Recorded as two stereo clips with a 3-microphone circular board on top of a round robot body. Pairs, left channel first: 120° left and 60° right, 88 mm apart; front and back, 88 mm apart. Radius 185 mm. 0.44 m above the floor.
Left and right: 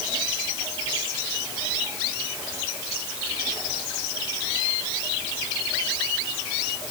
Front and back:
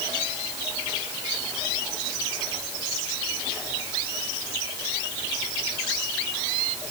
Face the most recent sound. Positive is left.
No sound to turn to.